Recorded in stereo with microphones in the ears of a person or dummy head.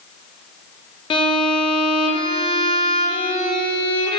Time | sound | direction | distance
1.1 | a violin | 25° left (ahead or behind) | 1.0 m